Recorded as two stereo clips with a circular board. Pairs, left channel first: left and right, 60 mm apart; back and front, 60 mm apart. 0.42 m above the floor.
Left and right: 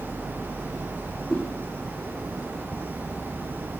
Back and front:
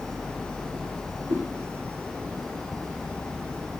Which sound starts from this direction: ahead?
A whoosh, at 1.3 s.